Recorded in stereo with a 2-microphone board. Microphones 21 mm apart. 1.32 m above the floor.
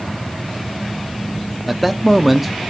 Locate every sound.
1.7 s a man speaking: 5° right (ahead or behind), 0.5 m